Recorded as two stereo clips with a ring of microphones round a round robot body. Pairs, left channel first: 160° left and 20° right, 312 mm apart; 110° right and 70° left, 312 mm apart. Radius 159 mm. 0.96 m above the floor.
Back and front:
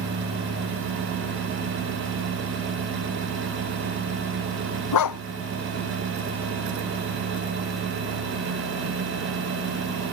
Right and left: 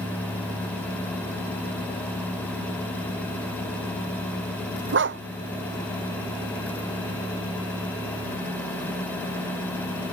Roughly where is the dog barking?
Behind left.